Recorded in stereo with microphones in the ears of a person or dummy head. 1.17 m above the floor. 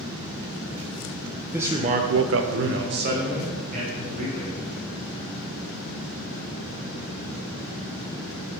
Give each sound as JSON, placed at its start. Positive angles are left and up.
{"t": 1.5, "sound": "a man speaking", "side_deg": -10, "distance_m": 0.8}